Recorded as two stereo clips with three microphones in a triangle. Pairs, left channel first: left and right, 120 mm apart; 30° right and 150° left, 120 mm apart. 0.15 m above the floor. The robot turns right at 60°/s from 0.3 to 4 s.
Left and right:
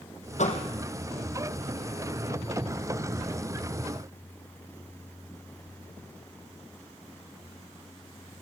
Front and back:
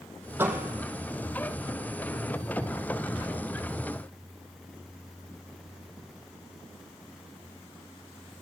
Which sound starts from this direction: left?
A door slam, at 0.4 s.